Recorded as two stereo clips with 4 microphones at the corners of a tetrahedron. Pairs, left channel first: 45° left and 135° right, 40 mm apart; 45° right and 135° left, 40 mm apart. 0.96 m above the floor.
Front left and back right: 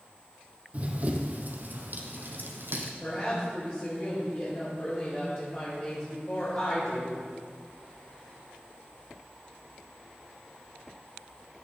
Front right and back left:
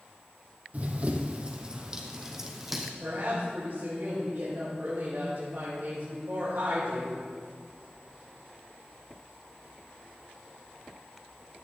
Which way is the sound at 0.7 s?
Straight behind.